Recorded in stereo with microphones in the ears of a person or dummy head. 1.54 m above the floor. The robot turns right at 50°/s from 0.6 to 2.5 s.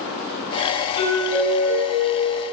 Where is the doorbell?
25° left, 1.7 m; by 2.4 s 100° left, 1.7 m.